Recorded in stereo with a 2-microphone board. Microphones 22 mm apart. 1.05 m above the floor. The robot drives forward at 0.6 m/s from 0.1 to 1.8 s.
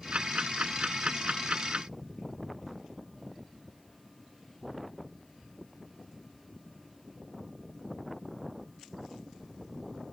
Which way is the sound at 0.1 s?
60° right (ahead or behind).